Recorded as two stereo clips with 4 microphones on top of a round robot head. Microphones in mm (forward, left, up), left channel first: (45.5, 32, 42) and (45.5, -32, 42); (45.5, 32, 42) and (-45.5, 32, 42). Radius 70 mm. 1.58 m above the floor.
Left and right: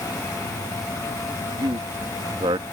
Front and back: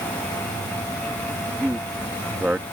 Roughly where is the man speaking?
Right.